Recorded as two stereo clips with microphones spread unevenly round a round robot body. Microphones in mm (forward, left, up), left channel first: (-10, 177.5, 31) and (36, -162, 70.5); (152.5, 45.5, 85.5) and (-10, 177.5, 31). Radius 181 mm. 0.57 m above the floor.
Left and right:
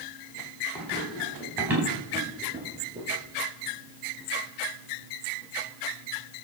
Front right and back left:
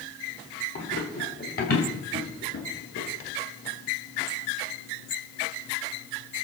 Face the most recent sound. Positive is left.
turn(degrees=-10)